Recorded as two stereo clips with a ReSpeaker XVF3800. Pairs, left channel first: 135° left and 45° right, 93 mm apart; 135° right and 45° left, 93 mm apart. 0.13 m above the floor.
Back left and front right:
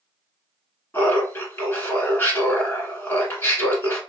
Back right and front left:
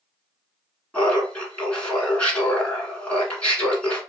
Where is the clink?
I don't hear a clink.